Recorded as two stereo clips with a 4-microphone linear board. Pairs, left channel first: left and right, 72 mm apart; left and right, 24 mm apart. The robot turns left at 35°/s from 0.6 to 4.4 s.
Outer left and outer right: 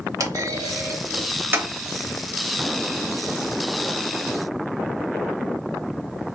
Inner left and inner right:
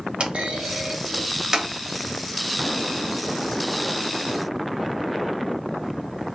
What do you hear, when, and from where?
0.2 s a clunk: 55° right (ahead or behind), 0.7 m; by 1.7 s 25° right (ahead or behind), 0.7 m